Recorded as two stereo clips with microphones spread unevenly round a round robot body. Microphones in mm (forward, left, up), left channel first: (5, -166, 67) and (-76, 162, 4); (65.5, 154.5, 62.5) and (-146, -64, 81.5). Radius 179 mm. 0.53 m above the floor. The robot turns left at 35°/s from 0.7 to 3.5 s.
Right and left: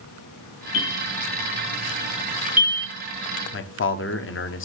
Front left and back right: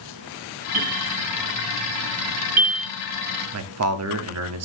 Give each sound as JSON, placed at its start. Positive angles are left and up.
{"t": 0.7, "sound": "a bell", "azimuth_deg": -110, "distance_m": 9.5}
{"t": 3.5, "sound": "a man speaking", "azimuth_deg": -130, "distance_m": 1.3}